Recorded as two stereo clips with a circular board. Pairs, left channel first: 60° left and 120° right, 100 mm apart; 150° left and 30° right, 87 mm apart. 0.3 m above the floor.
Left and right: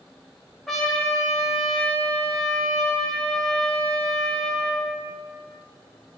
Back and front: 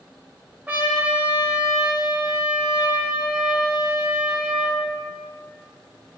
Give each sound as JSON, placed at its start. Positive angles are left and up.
{"t": 0.7, "sound": "a trumpet", "azimuth_deg": -25, "distance_m": 1.4}